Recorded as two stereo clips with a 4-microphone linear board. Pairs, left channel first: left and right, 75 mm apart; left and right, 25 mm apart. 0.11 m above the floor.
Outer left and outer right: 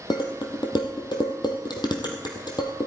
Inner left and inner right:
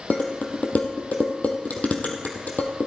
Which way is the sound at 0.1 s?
70° left (ahead or behind).